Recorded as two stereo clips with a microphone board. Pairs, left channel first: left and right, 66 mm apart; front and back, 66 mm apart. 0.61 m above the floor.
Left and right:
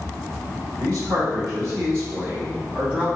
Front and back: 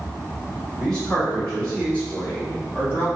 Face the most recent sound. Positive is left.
turn(degrees=-25)